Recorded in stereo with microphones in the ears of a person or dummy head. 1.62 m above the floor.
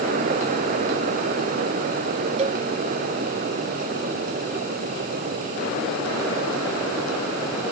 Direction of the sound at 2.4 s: 35° right (ahead or behind).